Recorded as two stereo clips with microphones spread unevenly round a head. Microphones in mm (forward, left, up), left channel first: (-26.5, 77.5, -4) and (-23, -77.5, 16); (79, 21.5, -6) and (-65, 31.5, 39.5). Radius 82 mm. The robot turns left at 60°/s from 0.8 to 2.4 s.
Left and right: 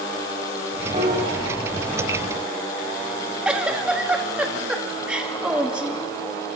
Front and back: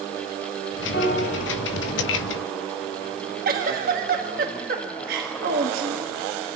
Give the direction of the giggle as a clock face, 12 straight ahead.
6 o'clock.